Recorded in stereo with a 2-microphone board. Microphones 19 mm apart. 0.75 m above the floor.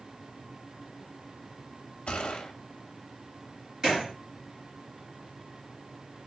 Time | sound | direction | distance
2.1 | a gunshot | 65° left (ahead or behind) | 0.5 m
3.8 | a gunshot | 30° right (ahead or behind) | 2 m